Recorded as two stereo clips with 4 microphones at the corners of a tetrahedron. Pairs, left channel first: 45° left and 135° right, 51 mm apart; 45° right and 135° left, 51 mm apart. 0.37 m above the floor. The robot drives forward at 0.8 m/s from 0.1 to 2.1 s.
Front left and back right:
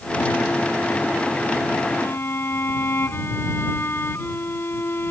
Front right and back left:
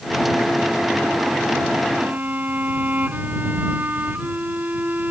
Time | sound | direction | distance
1.9 | a violin | 80° left | ?